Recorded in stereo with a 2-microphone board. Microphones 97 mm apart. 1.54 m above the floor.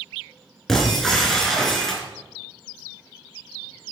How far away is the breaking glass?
About 4 m.